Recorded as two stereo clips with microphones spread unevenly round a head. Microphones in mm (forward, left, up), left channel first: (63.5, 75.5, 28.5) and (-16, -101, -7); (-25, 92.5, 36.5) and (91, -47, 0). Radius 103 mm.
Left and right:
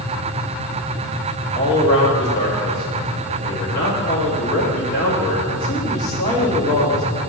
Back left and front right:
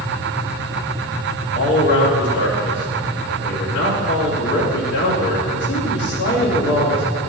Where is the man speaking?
110° left, 2.5 m.